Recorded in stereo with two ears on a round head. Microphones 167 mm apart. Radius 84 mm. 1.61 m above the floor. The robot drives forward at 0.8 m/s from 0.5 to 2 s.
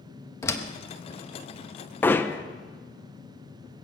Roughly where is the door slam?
Centre.